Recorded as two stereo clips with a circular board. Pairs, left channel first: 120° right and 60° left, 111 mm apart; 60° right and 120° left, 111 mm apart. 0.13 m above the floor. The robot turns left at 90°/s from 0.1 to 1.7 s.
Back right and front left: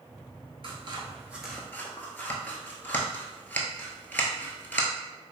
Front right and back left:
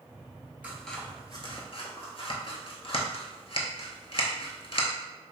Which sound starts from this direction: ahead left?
Scissors, at 0.6 s.